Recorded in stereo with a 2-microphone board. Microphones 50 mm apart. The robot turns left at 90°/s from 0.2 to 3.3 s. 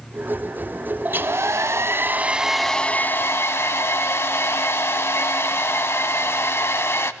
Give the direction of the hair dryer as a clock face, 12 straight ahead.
1 o'clock.